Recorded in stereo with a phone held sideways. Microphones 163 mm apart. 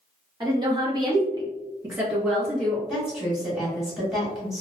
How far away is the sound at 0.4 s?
About 1.4 m.